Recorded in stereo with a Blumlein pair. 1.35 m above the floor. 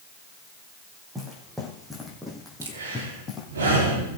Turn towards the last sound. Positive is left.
turn(degrees=-65)